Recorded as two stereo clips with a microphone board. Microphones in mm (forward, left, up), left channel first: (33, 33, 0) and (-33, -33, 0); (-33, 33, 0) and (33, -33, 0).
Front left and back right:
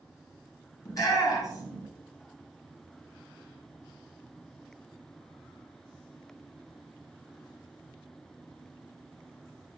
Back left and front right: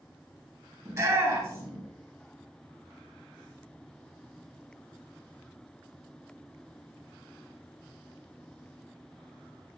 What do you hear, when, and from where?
0.8 s a shout: 5° left, 2.5 m